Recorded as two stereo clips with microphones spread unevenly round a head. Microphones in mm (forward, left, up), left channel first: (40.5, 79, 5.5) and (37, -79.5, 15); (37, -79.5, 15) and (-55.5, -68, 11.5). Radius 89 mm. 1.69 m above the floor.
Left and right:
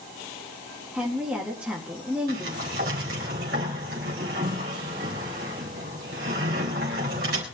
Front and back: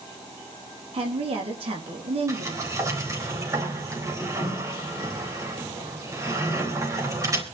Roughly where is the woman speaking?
Behind.